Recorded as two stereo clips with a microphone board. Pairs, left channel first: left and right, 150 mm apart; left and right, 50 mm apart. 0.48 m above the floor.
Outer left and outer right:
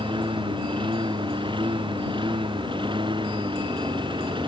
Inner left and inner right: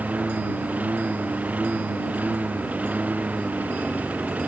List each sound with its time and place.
0.0 s a lawn mower: 35° right (ahead or behind)